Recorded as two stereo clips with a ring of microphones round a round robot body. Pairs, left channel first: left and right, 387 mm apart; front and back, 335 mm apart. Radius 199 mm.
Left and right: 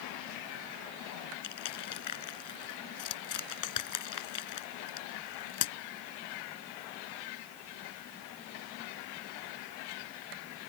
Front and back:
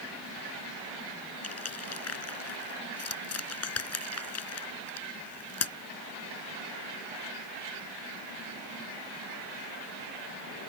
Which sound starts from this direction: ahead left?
Crushing, at 1.4 s.